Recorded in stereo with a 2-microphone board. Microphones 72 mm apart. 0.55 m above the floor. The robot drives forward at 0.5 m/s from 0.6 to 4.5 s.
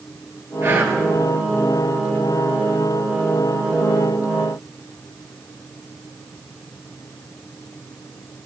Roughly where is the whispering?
Right.